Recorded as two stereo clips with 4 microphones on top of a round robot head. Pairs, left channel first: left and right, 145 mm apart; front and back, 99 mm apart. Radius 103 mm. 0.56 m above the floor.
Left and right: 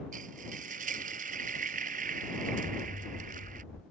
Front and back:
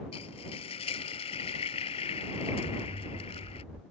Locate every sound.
0.1 s frying: 45° right
2.6 s an explosion: 150° left